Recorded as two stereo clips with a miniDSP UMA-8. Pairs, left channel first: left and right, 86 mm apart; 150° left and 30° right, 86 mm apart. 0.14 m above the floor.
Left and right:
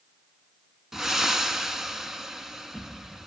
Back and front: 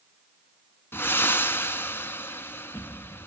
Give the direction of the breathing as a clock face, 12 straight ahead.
6 o'clock.